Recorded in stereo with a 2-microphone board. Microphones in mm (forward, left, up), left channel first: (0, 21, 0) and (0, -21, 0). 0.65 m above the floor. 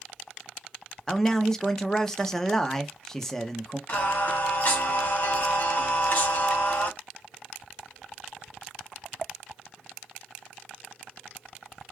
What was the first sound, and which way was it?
A man speaking, 10° left (ahead or behind).